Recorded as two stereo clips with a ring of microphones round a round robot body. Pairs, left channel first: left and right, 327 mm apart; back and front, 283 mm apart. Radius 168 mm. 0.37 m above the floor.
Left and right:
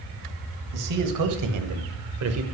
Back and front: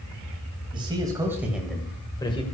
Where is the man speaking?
75° right, 2 m; by 2.4 s 115° right, 1.3 m.